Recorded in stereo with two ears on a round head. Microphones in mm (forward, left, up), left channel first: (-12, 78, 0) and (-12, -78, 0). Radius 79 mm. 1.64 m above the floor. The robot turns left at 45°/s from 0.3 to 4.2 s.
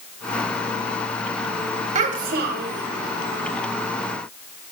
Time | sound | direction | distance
1.9 | a child speaking | 40° right | 1.1 m